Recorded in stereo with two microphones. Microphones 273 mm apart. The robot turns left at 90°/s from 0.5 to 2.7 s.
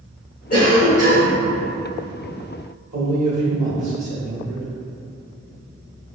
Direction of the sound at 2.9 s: 70° right (ahead or behind).